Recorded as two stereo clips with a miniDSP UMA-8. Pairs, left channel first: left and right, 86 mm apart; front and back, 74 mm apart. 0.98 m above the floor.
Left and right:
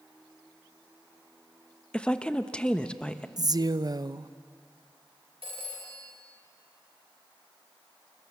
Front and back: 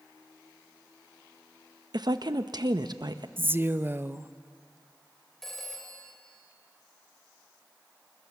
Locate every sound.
1.9 s a woman speaking: 165° left, 0.9 m
3.4 s a woman speaking: 125° right, 0.6 m
5.4 s a phone ringing: 85° right, 3 m